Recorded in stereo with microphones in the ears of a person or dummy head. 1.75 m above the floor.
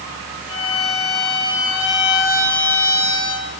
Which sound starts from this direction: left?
A violin, at 0.5 s.